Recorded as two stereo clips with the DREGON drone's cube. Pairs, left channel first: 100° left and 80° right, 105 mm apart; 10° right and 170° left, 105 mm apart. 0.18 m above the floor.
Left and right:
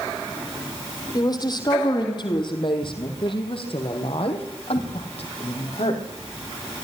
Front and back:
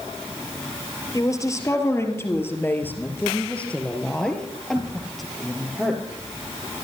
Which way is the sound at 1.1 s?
50° left.